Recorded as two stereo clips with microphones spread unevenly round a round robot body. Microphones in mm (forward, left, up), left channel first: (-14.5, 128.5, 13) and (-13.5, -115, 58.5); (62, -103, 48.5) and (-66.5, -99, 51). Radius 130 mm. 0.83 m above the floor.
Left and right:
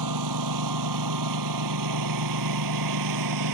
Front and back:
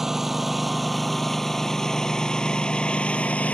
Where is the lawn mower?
95° right; by 3.5 s 80° right.